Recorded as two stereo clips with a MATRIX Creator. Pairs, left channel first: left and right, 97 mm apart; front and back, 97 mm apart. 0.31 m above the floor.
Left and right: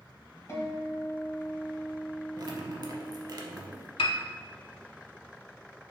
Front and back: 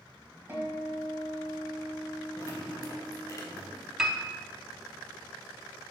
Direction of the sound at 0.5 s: 125° left.